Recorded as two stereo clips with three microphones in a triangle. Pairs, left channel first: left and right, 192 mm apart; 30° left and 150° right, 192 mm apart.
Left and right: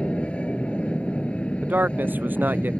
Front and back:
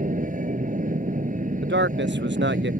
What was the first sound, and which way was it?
An aircraft, 175° left.